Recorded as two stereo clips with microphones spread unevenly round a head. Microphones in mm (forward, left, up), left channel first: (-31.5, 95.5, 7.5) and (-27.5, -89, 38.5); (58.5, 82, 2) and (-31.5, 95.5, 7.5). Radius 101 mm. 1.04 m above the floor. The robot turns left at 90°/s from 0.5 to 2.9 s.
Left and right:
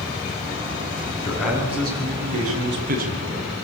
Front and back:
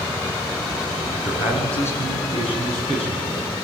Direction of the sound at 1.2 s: 20° left.